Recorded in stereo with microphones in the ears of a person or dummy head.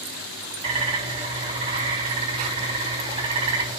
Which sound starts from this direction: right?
A bird, at 0.6 s.